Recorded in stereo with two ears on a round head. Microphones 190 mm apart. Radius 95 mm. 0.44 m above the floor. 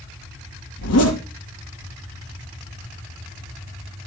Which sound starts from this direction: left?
A zipper, at 0.8 s.